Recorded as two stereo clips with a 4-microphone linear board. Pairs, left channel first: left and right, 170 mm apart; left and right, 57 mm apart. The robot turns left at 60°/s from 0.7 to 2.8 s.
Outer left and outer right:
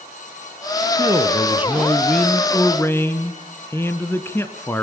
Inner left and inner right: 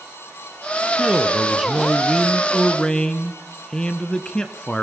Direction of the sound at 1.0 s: 20° right (ahead or behind).